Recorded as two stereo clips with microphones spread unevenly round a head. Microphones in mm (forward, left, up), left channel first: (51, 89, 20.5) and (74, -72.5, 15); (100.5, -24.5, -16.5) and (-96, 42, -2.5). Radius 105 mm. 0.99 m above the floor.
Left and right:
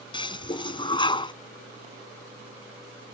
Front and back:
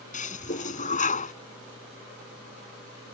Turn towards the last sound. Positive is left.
turn(degrees=35)